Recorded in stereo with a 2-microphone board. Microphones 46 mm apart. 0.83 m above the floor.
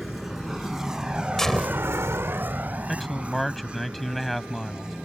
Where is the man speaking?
5° left (ahead or behind).